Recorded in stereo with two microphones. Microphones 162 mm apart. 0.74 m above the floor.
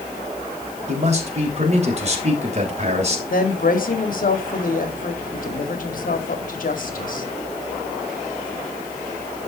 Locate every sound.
0.9 s a man speaking: 40° right (ahead or behind), 2.5 m
3.3 s a woman speaking: 60° left (ahead or behind), 1.8 m